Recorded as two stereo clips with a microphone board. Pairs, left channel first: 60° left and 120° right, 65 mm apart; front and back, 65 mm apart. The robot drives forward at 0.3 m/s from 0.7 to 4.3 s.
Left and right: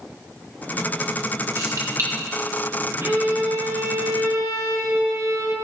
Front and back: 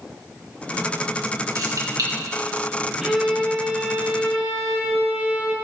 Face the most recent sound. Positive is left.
turn(degrees=-115)